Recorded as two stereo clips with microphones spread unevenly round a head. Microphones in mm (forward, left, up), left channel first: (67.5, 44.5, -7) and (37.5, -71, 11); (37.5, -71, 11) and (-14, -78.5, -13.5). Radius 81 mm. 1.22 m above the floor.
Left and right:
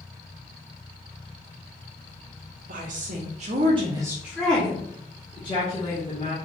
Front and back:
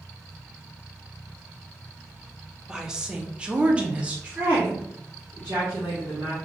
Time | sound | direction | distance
2.7 | a woman speaking | 110° right | 0.9 m